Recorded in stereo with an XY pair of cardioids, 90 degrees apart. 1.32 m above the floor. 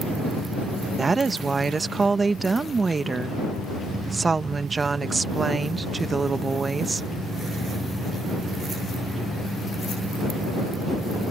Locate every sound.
1.0 s a woman speaking: 30° right